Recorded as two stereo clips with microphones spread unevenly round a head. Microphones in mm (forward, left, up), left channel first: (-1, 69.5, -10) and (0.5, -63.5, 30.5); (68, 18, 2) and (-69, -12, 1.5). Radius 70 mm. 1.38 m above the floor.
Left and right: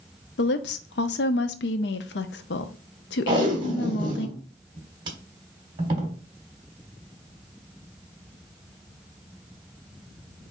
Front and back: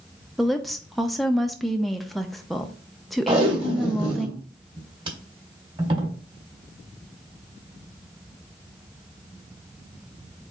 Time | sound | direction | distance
0.4 | a woman speaking | 100° left | 0.6 m
3.3 | tape being pulled | 115° right | 1.5 m